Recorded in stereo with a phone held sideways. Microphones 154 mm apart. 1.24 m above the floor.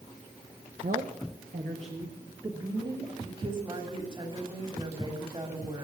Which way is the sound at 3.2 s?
35° right (ahead or behind).